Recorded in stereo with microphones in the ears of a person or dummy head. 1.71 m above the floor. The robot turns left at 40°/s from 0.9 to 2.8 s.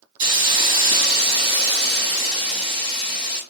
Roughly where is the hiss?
Ahead right.